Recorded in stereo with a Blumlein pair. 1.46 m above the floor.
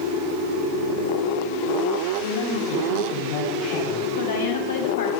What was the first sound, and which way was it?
A man speaking, 45° left.